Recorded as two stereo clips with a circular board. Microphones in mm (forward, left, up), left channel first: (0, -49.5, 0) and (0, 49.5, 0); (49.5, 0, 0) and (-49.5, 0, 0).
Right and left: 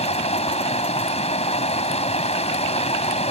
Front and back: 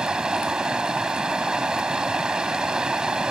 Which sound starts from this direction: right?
Running water, at 0.0 s.